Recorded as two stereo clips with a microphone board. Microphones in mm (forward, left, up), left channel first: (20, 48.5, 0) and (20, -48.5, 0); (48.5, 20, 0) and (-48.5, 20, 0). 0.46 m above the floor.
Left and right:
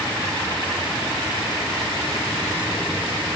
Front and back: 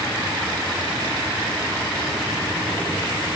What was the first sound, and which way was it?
Only background noise.